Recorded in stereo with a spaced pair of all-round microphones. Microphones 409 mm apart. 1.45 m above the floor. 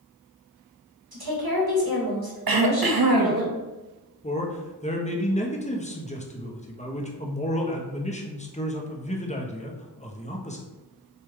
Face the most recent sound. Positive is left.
turn(degrees=15)  # may be behind; listen again after turning